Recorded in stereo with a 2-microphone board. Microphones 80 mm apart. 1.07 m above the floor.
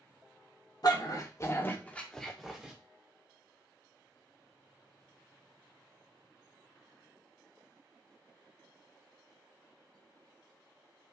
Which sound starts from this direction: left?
A dog barking, at 0.8 s.